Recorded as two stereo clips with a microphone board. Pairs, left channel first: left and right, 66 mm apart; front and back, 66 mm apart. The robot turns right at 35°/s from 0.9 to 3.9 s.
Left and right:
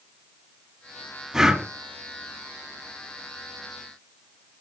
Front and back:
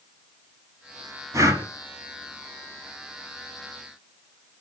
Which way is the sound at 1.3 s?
175° right.